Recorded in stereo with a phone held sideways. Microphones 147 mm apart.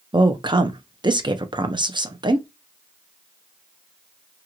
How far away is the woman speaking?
About 0.5 m.